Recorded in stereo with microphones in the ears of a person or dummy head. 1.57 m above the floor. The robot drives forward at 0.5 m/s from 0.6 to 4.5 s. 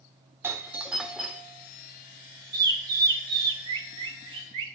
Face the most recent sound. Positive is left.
turn(degrees=-30)  # may be behind; listen again after turning